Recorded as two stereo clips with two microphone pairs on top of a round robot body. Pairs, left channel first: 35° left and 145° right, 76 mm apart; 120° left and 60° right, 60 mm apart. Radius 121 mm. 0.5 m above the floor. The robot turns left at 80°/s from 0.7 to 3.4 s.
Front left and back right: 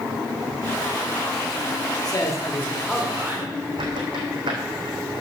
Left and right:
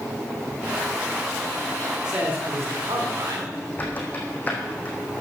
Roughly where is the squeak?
Behind.